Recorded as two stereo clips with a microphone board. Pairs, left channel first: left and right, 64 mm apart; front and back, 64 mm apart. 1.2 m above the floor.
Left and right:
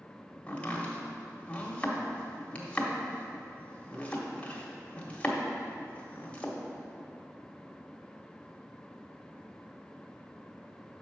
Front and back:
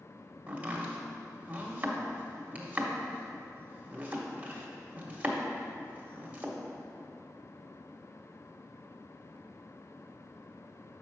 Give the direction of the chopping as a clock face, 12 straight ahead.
7 o'clock.